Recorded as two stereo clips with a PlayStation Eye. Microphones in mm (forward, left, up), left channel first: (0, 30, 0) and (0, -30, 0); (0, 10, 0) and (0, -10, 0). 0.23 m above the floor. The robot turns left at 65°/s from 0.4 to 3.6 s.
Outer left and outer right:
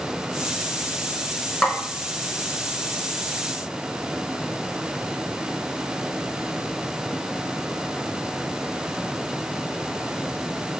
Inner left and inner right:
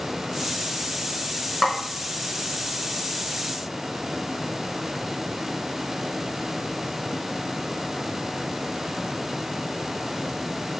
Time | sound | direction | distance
1.6 | a snare drum | 15° left (ahead or behind) | 0.7 m